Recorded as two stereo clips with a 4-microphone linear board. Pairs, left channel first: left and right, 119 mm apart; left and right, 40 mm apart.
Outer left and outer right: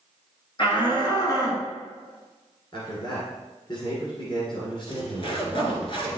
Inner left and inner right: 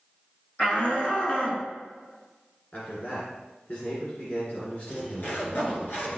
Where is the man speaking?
40° left (ahead or behind), 2 m.